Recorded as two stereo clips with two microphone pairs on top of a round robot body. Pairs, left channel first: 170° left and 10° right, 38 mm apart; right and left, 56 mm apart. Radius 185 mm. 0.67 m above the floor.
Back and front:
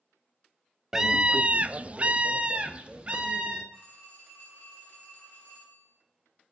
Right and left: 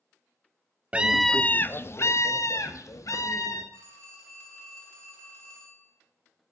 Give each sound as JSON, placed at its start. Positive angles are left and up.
{"t": 0.9, "sound": "a scream", "azimuth_deg": 65, "distance_m": 0.7}
{"t": 3.7, "sound": "a phone ringing", "azimuth_deg": 45, "distance_m": 4.0}